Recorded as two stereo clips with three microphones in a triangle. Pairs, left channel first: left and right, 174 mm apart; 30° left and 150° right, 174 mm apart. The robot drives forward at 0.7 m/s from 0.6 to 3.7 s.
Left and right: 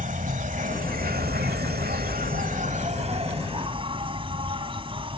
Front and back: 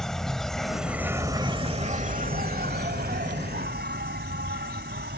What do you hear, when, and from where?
0.0 s an insect: 55° right; by 5.2 s 150° right